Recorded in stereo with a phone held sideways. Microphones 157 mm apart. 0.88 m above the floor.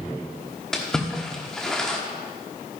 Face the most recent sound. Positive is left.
turn(degrees=5)  # may be behind; listen again after turning